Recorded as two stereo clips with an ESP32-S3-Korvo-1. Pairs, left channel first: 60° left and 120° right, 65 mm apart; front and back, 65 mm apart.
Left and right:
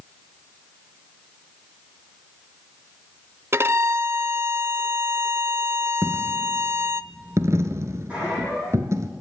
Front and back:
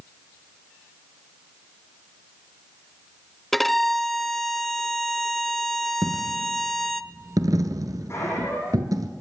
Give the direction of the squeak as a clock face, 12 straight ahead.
2 o'clock.